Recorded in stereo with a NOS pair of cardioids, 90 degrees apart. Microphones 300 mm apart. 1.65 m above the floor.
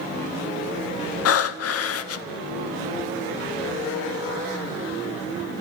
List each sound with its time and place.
1.2 s breathing: 60° left, 0.7 m